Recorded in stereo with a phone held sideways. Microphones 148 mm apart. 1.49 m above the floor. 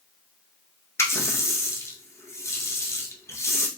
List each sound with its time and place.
1.0 s a running tap: 20° left (ahead or behind), 0.5 m